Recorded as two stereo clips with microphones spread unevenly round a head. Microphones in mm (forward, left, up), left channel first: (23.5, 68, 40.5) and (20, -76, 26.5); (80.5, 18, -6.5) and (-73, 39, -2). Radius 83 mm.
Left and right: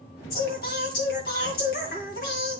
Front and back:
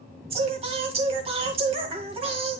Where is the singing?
120° left, 2 m.